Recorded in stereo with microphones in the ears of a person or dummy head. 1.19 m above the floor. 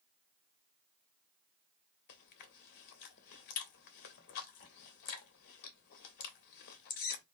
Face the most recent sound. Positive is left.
turn(degrees=50)  # may be behind; listen again after turning